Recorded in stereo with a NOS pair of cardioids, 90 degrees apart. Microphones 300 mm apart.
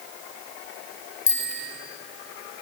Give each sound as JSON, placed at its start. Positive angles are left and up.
{"t": 1.3, "sound": "a bicycle bell", "azimuth_deg": 55, "distance_m": 3.0}